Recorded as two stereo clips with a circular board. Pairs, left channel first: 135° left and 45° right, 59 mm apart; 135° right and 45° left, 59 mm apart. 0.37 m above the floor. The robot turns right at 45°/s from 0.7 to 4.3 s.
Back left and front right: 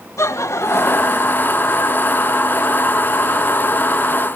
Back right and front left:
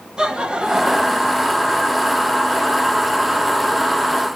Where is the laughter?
120° left, 1.6 m; by 1.4 s 150° left, 1.6 m.